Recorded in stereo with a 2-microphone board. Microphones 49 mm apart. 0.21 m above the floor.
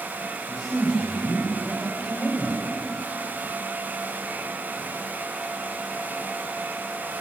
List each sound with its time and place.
0.5 s a man speaking: 20° right (ahead or behind), 8.5 m; by 2.7 s 25° right (ahead or behind), 10 m